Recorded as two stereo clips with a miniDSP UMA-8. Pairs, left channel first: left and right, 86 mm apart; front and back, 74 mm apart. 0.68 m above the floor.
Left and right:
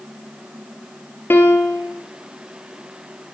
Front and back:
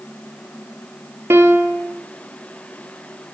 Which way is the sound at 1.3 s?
140° left.